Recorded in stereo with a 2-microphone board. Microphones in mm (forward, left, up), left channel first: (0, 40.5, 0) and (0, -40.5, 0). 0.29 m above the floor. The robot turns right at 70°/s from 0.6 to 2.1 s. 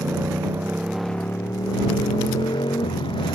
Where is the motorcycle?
25° right; by 3.4 s 80° left.